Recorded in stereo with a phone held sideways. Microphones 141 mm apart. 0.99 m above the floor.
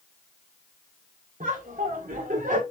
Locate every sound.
1.4 s laughter: 70° right (ahead or behind), 3.5 m; by 2.6 s 80° right, 4 m